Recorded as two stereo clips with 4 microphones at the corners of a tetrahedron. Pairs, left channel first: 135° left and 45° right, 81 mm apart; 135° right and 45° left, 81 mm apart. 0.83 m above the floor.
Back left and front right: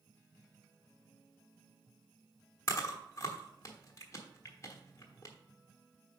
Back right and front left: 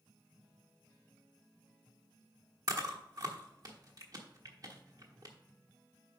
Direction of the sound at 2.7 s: 85° left.